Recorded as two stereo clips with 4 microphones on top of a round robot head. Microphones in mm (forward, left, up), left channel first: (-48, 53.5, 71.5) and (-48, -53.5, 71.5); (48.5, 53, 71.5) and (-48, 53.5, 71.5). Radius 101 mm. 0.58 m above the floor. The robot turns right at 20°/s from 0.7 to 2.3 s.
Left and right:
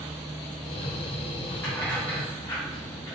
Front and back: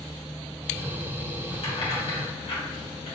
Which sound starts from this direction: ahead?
Keys jangling, at 1.6 s.